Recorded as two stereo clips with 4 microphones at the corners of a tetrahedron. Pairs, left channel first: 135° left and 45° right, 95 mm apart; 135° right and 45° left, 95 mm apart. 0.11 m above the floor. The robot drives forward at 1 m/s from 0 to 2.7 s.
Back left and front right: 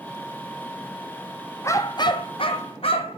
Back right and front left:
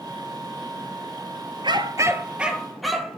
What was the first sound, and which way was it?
A dog barking, 75° left.